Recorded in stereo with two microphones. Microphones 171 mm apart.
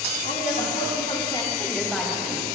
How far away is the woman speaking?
About 3 m.